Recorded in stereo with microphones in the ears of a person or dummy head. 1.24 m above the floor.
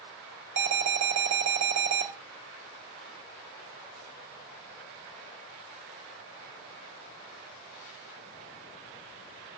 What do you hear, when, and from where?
0.6 s an alarm: 60° right (ahead or behind), 5 m